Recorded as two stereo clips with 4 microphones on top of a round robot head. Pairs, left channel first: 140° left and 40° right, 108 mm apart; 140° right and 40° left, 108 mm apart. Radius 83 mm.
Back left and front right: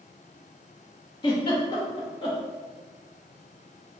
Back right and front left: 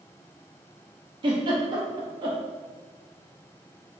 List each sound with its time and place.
1.2 s a giggle: 90° left, 1.0 m